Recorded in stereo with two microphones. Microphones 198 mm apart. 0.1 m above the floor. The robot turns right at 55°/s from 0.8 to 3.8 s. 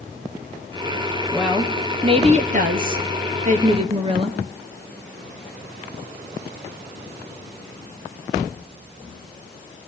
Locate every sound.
1.3 s a woman speaking: straight behind, 1.7 m; by 4.4 s 45° right, 1.7 m